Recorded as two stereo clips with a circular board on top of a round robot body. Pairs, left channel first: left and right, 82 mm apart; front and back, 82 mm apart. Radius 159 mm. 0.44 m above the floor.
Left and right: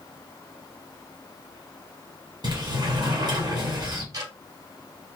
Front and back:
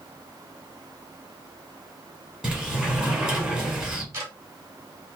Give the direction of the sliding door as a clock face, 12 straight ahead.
4 o'clock.